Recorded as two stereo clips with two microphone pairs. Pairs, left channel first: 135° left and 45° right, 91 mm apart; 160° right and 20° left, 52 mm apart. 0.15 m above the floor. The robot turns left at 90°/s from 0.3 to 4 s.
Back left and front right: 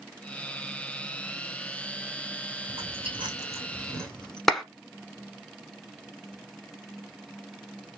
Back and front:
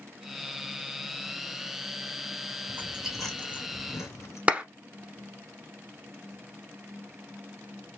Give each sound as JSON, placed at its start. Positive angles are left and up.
{"t": 2.7, "sound": "chewing", "azimuth_deg": -25, "distance_m": 2.5}
{"t": 4.5, "sound": "a clap", "azimuth_deg": 50, "distance_m": 0.9}